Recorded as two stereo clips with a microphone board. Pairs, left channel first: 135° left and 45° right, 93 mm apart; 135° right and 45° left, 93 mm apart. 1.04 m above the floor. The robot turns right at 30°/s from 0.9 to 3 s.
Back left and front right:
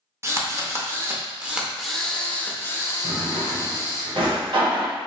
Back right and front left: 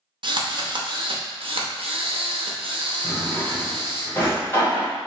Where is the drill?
15° left, 0.6 m; by 4.0 s 80° left, 0.6 m.